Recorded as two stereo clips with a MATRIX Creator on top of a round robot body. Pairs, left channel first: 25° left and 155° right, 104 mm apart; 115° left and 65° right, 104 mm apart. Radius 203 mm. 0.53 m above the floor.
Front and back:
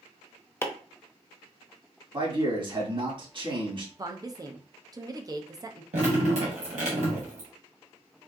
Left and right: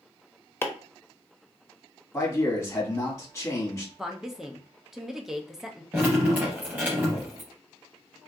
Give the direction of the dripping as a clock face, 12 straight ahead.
5 o'clock.